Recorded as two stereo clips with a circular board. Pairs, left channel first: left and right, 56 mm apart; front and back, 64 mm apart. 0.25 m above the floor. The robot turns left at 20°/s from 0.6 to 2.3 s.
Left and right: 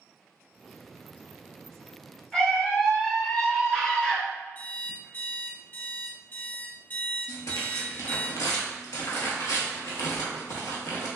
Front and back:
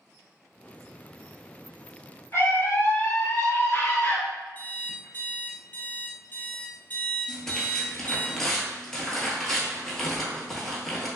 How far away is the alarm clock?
About 1.1 m.